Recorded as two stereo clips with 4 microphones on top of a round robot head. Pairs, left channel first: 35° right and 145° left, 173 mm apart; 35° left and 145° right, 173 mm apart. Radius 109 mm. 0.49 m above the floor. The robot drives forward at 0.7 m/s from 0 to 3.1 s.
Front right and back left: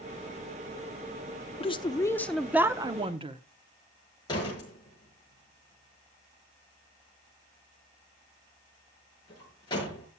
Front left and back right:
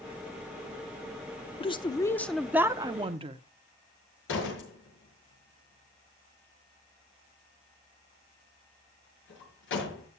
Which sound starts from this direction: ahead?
A woman speaking, at 1.6 s.